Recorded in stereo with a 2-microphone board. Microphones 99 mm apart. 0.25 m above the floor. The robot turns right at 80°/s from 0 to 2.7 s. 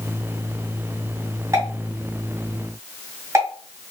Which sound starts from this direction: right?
A pop, at 1.5 s.